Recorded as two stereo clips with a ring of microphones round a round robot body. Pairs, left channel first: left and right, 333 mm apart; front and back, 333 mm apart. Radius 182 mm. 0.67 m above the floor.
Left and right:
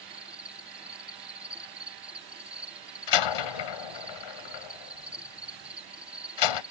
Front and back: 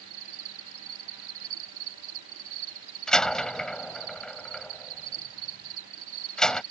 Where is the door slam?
90° left.